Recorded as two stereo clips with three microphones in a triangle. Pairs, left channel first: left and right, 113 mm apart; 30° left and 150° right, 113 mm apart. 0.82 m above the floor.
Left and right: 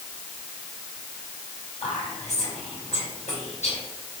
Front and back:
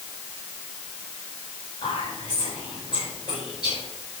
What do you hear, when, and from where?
1.8 s whispering: 80° left, 4 m